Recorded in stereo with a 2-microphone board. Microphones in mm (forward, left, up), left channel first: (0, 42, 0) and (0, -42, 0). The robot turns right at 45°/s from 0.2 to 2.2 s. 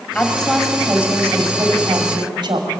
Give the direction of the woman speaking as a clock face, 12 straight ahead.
7 o'clock.